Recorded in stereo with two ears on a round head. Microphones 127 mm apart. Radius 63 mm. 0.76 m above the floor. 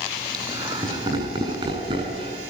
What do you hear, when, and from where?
0.3 s laughter: 30° right (ahead or behind), 6 m; by 2.4 s 40° right (ahead or behind), 6.5 m